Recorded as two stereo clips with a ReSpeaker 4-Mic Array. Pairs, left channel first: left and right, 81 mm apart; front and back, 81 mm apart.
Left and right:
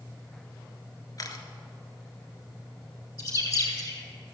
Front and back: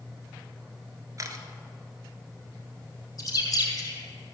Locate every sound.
1.2 s a camera shutter: 135° left, 1.1 m
3.2 s a bird: 45° left, 3 m